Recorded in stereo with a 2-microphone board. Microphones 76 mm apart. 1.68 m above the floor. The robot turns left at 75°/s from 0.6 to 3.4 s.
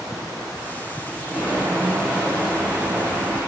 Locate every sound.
1.3 s footsteps: 15° right (ahead or behind), 1.9 m; by 3.4 s 5° left (ahead or behind), 3 m